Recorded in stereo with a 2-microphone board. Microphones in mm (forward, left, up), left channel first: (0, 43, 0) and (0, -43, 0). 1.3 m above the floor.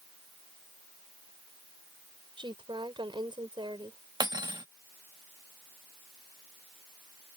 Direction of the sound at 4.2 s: 55° right (ahead or behind).